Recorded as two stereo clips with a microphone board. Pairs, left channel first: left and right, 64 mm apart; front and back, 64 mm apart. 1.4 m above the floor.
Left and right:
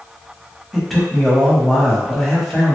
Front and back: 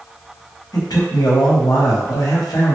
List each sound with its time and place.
0.7 s a man speaking: 5° left, 0.9 m